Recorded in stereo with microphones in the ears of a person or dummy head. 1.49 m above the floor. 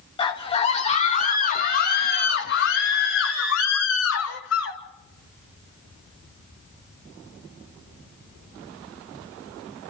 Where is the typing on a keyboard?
No typing on a keyboard in this recording.